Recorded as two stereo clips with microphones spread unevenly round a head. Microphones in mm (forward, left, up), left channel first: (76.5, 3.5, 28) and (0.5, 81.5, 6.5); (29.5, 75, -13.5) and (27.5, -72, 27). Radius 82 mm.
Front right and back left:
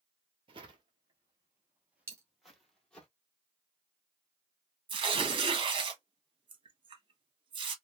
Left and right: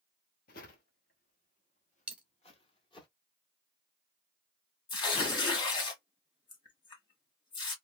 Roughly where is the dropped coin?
Behind right.